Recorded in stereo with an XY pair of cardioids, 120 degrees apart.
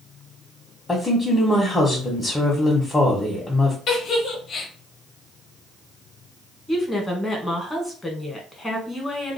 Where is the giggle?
50° left, 1.3 m.